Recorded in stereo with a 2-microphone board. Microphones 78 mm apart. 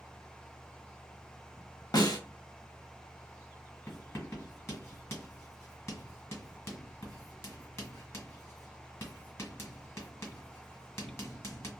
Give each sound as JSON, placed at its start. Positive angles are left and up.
{"t": 1.9, "sound": "a snare drum", "side_deg": 55, "distance_m": 0.7}
{"t": 3.9, "sound": "writing", "side_deg": 35, "distance_m": 1.7}